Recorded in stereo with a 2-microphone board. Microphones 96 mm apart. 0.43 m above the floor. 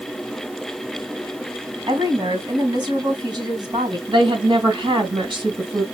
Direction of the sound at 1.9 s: 55° right (ahead or behind).